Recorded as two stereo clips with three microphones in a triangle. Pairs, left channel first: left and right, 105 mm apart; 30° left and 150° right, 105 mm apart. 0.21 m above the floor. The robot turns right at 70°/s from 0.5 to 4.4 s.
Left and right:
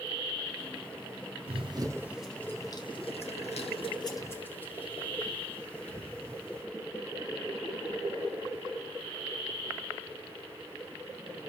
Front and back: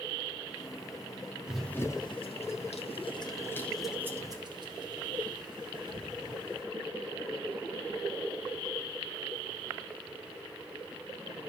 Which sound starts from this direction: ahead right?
Running footsteps, at 1.5 s.